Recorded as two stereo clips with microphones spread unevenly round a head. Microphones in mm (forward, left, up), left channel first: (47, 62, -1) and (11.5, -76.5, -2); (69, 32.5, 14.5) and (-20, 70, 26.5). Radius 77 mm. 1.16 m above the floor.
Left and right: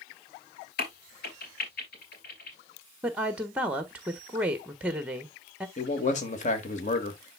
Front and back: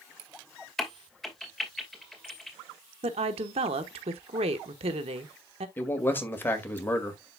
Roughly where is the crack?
Ahead left.